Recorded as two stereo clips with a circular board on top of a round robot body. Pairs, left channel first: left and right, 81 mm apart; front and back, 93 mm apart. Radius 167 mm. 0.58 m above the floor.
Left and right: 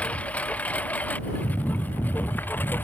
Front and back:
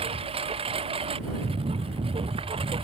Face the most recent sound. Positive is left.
turn(degrees=160)